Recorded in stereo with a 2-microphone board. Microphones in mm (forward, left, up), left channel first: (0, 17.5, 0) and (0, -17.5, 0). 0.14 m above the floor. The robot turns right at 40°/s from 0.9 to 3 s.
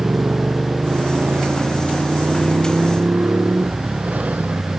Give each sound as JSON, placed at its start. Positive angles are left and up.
{"t": 0.0, "sound": "a motorcycle", "side_deg": -35}